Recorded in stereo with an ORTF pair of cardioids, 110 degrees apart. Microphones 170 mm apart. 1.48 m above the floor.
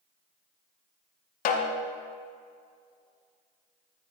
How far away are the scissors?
No scissors in this recording.